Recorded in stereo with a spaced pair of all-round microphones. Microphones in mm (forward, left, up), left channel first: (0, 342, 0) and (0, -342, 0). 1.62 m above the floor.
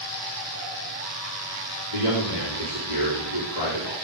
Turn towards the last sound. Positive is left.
turn(degrees=80)